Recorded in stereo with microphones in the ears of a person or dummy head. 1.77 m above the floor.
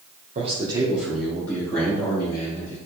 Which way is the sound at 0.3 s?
40° right (ahead or behind).